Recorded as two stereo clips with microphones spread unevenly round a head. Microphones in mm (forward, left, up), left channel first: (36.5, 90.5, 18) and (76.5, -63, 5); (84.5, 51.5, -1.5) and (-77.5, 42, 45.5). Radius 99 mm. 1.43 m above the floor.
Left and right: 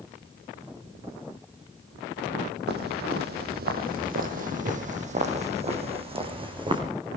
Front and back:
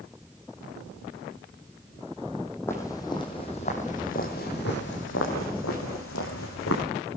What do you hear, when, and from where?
2.7 s footsteps: 85° right, 2.5 m; by 6.8 s 15° right, 4 m